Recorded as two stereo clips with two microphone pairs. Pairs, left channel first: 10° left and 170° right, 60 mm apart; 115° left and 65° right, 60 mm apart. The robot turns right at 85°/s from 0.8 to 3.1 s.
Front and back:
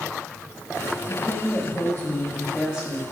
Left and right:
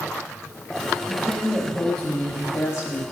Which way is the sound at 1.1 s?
30° right.